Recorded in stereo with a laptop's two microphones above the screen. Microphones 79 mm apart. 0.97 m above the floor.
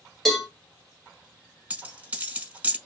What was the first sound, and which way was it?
A cowbell, 5° left (ahead or behind).